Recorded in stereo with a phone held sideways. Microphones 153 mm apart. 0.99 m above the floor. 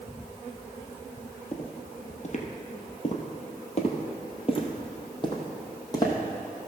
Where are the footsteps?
50° left (ahead or behind), 1.6 m; by 6.2 s 25° left (ahead or behind), 2.5 m.